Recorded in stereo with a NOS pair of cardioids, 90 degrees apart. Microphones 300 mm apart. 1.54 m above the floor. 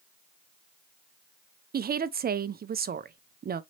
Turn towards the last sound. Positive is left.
turn(degrees=-30)